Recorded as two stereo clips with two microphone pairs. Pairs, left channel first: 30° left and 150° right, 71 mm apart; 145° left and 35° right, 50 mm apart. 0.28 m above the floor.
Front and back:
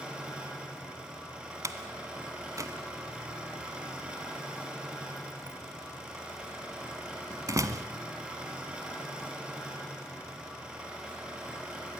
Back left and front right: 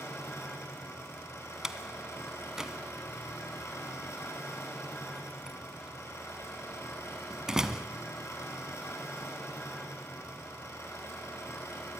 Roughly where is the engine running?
Behind left.